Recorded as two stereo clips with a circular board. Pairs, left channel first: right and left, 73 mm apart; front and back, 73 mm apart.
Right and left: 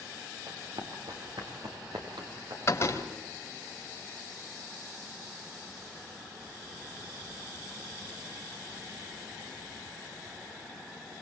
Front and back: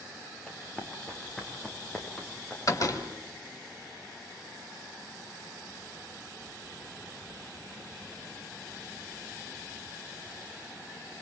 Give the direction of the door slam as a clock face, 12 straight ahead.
1 o'clock.